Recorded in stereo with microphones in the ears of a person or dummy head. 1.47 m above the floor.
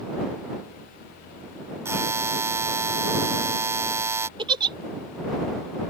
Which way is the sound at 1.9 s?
20° right (ahead or behind).